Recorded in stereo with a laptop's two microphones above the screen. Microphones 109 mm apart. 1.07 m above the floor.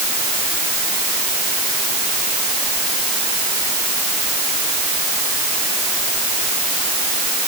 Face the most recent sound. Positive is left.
No sound to turn to.